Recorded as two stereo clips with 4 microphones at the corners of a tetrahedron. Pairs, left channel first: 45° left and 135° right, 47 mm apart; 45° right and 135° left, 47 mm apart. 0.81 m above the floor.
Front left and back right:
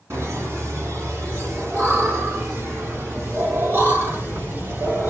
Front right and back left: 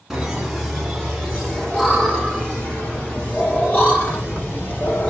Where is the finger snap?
No finger snap in this recording.